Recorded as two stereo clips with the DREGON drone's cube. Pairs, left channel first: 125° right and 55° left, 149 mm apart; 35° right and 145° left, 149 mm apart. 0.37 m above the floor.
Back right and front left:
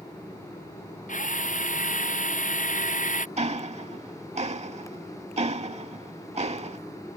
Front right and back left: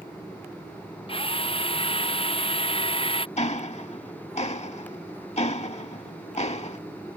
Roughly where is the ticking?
Ahead.